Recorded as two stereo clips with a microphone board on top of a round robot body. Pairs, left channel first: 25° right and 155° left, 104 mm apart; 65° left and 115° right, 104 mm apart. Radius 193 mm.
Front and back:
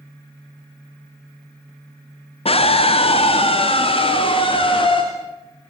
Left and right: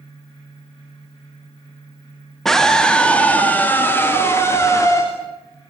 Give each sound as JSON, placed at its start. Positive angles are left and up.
{"t": 2.5, "sound": "a scream", "azimuth_deg": -20, "distance_m": 2.0}